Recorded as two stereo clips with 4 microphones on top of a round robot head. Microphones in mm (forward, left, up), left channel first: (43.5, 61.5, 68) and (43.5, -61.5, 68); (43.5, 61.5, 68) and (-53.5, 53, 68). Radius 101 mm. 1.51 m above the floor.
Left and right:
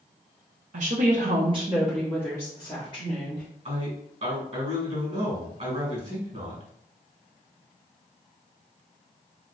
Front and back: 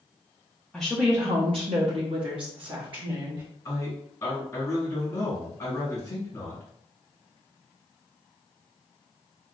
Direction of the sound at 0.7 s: 80° right.